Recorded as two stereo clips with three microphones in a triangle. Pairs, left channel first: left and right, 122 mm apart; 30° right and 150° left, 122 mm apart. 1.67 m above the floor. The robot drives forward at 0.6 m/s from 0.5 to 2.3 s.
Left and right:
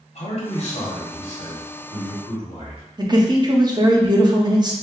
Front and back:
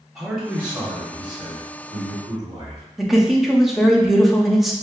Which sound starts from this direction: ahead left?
A man speaking, at 0.1 s.